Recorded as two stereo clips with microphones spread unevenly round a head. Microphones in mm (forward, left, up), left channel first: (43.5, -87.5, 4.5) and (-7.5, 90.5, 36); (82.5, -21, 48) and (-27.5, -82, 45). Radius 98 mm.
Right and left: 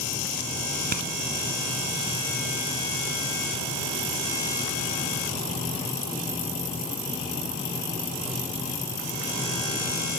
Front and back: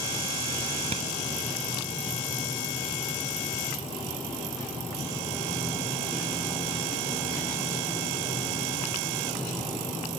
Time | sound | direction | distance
0.9 | a clap | 150° left | ?